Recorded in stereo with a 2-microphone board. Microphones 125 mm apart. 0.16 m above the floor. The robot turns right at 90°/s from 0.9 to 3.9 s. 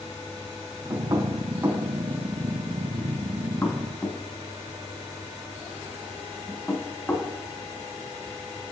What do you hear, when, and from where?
0.9 s knocking: 25° right (ahead or behind), 1.0 m; by 7.3 s 10° left (ahead or behind), 1.0 m